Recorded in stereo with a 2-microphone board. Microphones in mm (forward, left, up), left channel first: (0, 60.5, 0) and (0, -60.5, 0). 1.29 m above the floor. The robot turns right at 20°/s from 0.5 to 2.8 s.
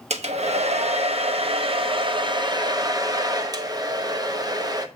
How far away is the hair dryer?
About 0.8 m.